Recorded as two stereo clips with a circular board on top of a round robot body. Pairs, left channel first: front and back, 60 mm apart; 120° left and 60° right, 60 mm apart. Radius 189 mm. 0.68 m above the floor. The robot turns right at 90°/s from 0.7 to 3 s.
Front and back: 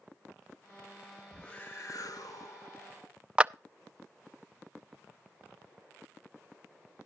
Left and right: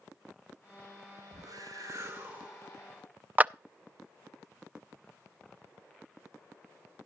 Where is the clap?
115° right, 0.5 m.